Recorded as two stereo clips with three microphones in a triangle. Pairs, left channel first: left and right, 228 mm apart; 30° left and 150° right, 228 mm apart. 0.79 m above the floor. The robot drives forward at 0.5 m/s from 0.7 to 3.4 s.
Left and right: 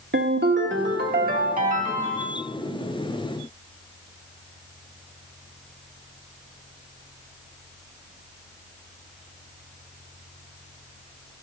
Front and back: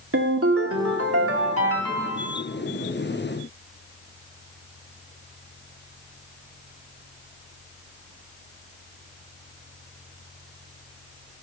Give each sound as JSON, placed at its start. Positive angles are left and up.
{"t": 0.1, "sound": "a ringtone", "azimuth_deg": -130, "distance_m": 1.0}